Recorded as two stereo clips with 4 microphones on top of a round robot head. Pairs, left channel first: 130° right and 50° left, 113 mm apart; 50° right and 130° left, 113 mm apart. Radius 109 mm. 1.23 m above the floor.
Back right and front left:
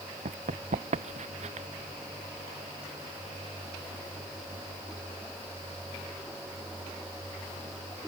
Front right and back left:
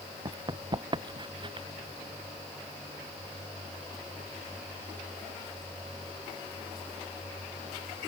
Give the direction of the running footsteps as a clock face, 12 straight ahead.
10 o'clock.